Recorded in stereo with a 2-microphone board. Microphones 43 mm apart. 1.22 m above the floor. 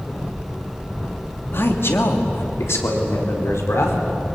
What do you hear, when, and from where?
1.5 s a man speaking: 60° left (ahead or behind), 2.5 m; by 4.0 s 85° left, 4.5 m